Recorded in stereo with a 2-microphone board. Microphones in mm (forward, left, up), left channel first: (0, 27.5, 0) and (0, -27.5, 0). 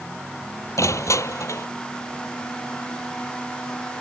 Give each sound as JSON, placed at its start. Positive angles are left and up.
{"t": 0.8, "sound": "crushing", "side_deg": 70}